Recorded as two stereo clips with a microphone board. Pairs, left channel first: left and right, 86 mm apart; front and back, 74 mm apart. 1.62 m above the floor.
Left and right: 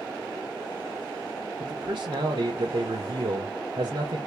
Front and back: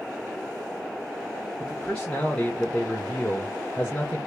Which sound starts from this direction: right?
A man speaking, at 1.6 s.